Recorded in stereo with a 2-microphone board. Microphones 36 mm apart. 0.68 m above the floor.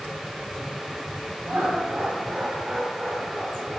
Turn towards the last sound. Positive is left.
turn(degrees=15)  # may be behind; listen again after turning